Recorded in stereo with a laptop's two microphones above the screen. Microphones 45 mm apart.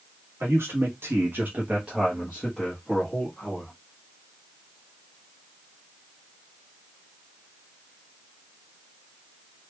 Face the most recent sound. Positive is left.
turn(degrees=30)  # may be behind; listen again after turning